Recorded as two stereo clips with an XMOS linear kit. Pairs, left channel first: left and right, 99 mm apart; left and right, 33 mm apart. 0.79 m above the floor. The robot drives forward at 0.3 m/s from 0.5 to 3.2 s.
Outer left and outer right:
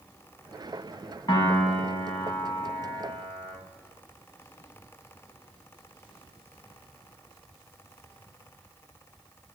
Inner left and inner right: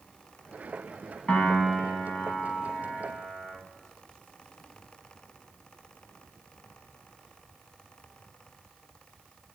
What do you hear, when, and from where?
1.3 s a piano: 45° left (ahead or behind), 3 m; by 3.5 s 40° left (ahead or behind), 3 m